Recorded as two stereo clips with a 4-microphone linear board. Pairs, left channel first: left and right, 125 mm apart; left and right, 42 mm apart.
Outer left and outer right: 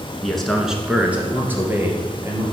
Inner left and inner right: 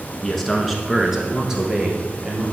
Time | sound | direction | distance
0.2 | a man speaking | 5° left (ahead or behind) | 1.2 m